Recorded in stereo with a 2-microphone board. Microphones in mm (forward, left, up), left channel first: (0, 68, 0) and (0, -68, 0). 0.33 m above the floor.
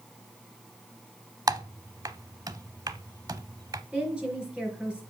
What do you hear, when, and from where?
1.5 s typing on a keyboard: 25° right (ahead or behind), 0.5 m
3.9 s a woman speaking: 5° right (ahead or behind), 4.5 m